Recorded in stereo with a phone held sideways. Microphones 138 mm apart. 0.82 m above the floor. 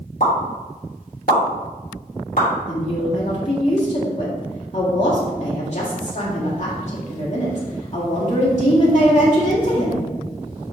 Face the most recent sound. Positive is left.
turn(degrees=55)  # may be behind; listen again after turning